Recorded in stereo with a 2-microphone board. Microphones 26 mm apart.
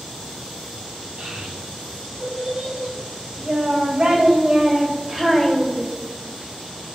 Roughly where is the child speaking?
Right.